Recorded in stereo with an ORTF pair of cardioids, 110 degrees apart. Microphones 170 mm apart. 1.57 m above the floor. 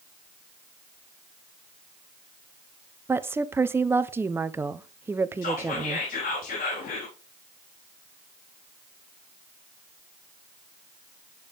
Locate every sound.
3.1 s a woman speaking: 15° right, 0.8 m
5.4 s whispering: 60° left, 3.5 m